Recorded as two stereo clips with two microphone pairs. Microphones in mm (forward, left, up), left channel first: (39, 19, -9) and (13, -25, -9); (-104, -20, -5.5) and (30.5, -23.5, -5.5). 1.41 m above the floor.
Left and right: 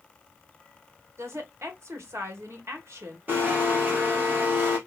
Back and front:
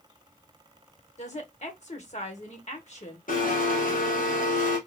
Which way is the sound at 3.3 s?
170° right.